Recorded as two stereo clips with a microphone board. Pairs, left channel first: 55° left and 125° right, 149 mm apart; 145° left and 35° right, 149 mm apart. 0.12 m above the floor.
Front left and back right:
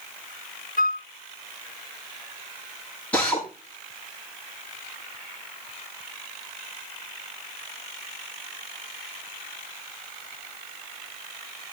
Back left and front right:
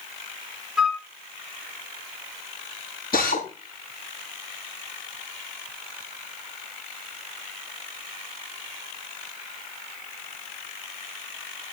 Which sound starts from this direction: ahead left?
A flute, at 0.8 s.